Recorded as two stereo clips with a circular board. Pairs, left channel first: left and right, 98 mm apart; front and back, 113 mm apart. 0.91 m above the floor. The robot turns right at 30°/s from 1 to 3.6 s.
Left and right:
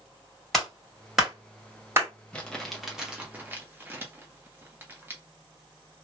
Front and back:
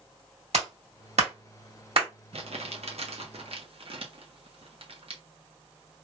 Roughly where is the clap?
Behind.